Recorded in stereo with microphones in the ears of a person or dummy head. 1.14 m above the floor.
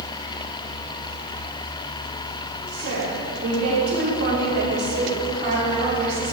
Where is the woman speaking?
75° right (ahead or behind), 3 m; by 6.3 s 35° right (ahead or behind), 3 m.